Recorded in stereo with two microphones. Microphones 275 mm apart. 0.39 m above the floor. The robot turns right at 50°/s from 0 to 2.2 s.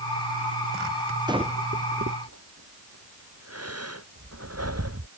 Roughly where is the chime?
No chime in this recording.